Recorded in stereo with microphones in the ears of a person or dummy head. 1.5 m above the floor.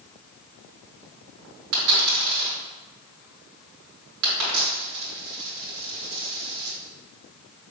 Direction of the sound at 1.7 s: 55° right (ahead or behind).